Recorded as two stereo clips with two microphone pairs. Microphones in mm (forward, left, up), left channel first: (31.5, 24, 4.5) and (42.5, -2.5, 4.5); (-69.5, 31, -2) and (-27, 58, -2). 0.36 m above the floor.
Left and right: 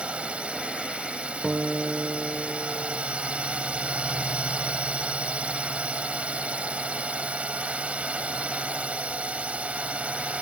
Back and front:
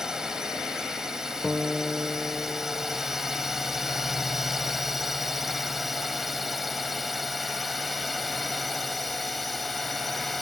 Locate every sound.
0.0 s a drone: 45° right; by 10.4 s 60° right
1.4 s a guitar: 70° right